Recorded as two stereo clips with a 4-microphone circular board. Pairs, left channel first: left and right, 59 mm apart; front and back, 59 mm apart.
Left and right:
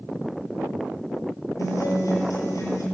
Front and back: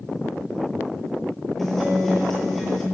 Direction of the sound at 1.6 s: 90° left.